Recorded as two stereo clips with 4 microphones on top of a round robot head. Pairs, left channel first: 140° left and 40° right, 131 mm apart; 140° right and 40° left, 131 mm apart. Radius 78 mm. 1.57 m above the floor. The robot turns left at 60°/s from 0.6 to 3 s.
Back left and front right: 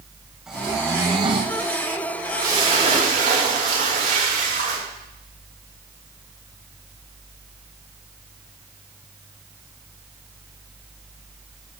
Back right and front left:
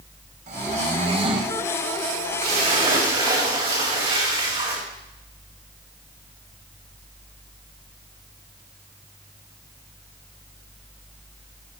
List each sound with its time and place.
0.5 s snoring: 45° left, 0.8 m; by 1.6 s 15° right, 0.8 m
2.4 s a splash: 25° left, 6 m; by 4.8 s 10° right, 6 m